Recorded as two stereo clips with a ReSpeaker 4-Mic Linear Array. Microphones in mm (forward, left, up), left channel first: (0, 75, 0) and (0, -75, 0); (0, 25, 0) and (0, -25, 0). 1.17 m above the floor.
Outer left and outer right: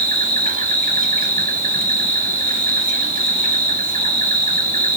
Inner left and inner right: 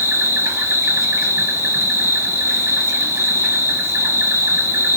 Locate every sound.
0.0 s an insect: 65° right (ahead or behind), 0.8 m